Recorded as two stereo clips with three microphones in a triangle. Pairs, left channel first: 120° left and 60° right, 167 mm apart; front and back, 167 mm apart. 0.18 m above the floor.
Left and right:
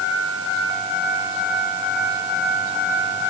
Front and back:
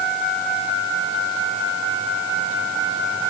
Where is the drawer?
I don't hear a drawer.